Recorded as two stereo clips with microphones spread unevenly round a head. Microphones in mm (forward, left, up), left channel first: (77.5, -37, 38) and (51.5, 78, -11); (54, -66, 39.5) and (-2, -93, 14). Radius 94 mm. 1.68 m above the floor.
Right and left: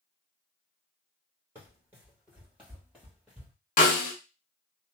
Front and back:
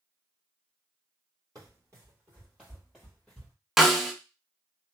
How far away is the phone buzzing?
No phone buzzing in this recording.